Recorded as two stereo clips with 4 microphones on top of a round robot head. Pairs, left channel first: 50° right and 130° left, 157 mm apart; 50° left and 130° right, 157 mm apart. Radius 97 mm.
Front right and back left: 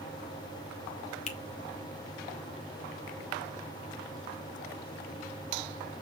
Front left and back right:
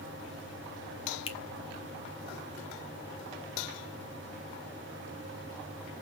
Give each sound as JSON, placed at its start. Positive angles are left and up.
{"t": 1.3, "sound": "a finger snap", "azimuth_deg": -5, "distance_m": 1.6}